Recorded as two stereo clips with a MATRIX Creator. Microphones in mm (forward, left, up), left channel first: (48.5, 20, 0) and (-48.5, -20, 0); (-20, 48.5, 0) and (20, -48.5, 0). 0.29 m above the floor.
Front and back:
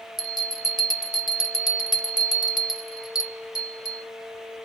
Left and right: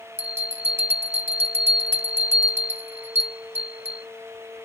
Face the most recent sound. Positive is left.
turn(degrees=-10)